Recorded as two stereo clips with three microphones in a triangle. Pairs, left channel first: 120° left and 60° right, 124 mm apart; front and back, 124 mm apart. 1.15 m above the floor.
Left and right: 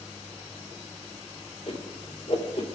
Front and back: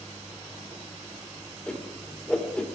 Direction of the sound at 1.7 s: 80° left.